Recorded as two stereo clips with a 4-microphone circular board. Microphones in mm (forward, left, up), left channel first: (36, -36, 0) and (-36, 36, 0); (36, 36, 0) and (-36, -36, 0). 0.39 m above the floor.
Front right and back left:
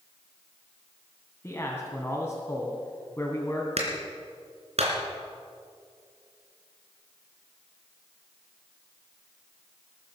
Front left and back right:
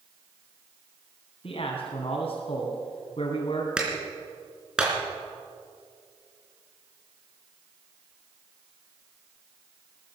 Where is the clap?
140° left, 3.5 m.